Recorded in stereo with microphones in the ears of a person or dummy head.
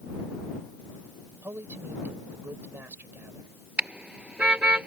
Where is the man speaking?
10° right (ahead or behind).